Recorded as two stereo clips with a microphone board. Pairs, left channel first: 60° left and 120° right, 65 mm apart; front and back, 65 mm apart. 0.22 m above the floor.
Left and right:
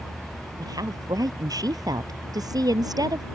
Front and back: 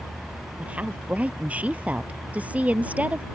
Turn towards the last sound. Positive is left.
turn(degrees=-110)